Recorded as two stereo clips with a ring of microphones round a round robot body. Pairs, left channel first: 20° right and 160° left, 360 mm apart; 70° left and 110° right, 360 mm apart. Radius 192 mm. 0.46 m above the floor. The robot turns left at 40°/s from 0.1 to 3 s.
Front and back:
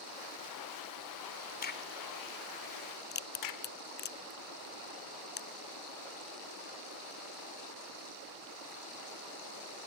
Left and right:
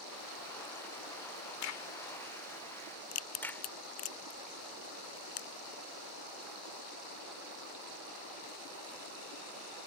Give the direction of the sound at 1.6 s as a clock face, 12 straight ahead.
11 o'clock.